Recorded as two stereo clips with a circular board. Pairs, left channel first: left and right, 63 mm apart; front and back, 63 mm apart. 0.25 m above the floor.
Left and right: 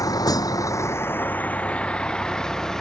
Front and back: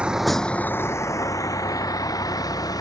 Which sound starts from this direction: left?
A vehicle, at 0.0 s.